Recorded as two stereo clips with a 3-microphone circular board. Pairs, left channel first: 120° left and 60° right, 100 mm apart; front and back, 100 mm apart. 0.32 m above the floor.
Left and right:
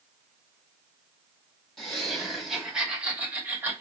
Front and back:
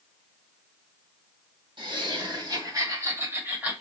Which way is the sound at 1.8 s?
155° right.